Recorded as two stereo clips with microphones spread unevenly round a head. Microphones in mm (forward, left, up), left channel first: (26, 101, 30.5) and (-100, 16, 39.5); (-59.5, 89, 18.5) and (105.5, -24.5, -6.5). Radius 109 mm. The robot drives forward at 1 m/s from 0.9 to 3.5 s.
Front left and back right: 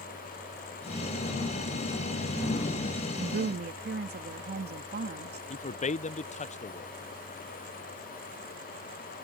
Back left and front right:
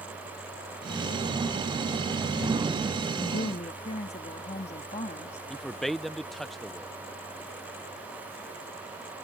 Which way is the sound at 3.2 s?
145° right.